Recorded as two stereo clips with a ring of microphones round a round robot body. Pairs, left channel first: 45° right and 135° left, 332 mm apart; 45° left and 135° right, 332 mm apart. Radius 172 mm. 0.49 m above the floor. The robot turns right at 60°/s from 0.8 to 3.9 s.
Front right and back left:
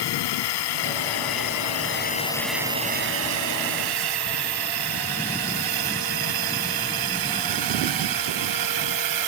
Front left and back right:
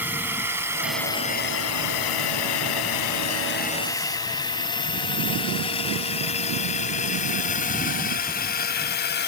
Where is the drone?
50° right; by 9.3 s 105° left.